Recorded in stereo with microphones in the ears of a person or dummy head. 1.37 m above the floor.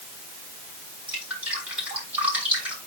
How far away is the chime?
I don't hear a chime.